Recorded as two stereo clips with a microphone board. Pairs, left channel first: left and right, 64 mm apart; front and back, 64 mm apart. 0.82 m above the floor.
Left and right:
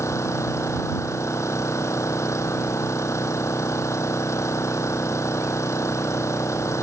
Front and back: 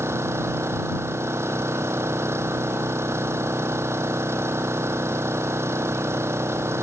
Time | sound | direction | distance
0.0 | an engine running | 130° left | ?